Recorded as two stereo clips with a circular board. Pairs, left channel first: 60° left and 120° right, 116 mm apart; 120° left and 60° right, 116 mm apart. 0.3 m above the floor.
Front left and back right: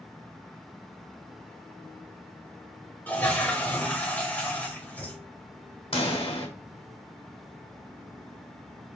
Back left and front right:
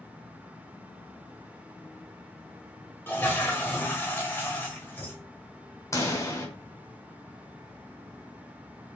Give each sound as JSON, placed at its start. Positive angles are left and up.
{"t": 3.1, "sound": "a toilet flushing", "azimuth_deg": 105, "distance_m": 1.0}
{"t": 5.9, "sound": "a pop", "azimuth_deg": 65, "distance_m": 1.3}